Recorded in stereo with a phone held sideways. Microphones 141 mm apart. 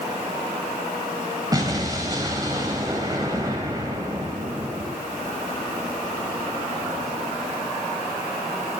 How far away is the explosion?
About 2 m.